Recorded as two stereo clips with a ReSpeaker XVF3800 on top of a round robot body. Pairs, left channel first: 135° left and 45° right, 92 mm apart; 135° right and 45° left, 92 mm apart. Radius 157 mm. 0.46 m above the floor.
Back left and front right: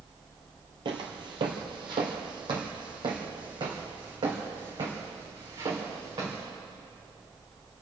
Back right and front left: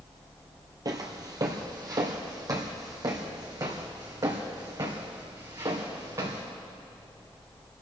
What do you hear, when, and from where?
0.8 s footsteps: 5° right, 0.9 m